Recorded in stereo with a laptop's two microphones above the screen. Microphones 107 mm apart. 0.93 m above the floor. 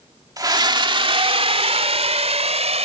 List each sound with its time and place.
0.4 s a scream: 35° right (ahead or behind); by 2.9 s 80° right